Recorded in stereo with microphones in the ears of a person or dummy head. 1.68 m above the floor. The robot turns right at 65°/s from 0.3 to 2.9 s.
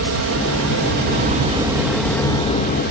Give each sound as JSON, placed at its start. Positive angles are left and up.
{"t": 0.0, "sound": "an aircraft", "azimuth_deg": -110}